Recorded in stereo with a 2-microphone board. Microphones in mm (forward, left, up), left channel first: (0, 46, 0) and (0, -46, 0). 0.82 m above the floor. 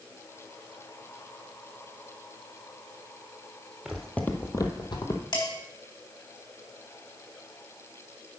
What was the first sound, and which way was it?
Footsteps, 5° right (ahead or behind).